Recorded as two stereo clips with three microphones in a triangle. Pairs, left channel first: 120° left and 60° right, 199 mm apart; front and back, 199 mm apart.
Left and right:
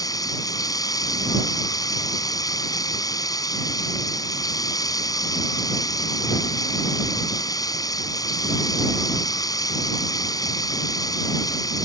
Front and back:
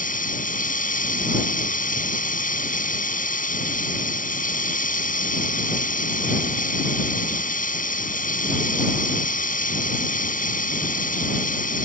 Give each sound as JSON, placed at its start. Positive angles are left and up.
{"t": 0.0, "sound": "running water", "azimuth_deg": 50}